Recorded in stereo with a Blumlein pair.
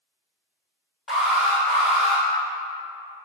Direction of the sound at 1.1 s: 15° left.